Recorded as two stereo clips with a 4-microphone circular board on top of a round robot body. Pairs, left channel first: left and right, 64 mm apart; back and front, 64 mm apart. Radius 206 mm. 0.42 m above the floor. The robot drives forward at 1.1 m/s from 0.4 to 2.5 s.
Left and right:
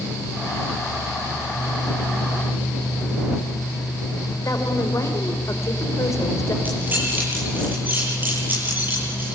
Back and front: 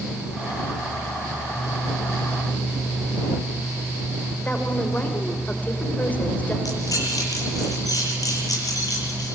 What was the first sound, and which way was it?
A woman speaking, 120° left.